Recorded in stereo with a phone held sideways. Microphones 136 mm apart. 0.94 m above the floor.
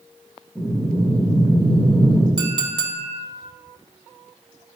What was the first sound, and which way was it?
Breathing, 5° left (ahead or behind).